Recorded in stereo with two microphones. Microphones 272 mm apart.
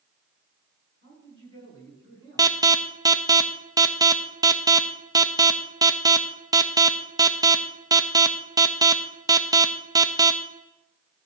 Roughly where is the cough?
No cough in this recording.